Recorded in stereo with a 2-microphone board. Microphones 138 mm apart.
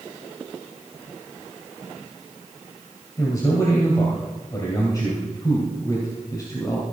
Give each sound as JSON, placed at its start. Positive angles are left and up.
{"t": 3.2, "sound": "a man speaking", "side_deg": 25, "distance_m": 2.5}